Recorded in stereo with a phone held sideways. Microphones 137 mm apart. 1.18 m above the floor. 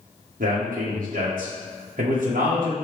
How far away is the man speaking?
About 1.0 m.